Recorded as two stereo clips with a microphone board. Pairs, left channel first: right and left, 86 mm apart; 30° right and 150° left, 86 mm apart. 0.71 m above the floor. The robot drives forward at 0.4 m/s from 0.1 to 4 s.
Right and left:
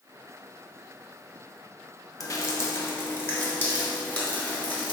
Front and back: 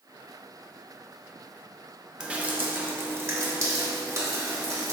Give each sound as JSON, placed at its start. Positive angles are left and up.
{"t": 2.2, "sound": "dripping", "azimuth_deg": -130, "distance_m": 0.5}